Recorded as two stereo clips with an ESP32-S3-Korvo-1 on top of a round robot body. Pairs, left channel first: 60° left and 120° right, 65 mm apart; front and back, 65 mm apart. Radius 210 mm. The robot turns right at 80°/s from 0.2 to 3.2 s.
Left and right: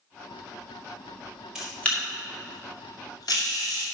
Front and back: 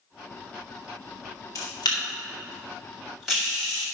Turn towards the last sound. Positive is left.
turn(degrees=95)